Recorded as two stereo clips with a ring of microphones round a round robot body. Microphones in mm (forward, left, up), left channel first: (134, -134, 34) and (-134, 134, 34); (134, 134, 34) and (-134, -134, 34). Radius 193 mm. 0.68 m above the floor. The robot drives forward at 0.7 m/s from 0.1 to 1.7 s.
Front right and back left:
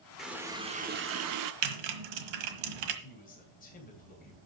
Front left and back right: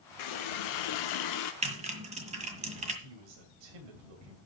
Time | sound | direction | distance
0.2 | a running tap | 45° left | 1.2 m
1.6 | typing on a keyboard | 150° left | 1.5 m
3.0 | a man speaking | 115° right | 3 m